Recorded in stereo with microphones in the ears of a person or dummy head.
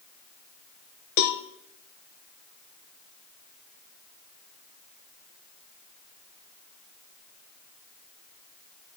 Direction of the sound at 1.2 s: 55° left (ahead or behind).